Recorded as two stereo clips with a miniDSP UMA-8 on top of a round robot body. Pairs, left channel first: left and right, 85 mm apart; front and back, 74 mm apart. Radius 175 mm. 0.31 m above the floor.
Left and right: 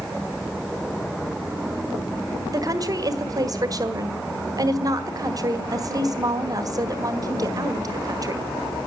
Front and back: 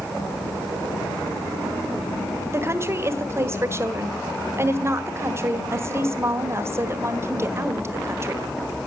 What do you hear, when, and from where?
2.5 s a woman speaking: 130° right, 1.9 m